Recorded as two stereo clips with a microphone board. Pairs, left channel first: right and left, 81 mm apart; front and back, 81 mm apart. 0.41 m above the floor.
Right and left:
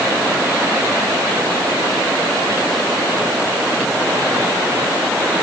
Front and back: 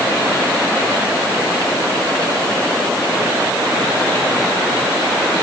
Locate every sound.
Only background noise.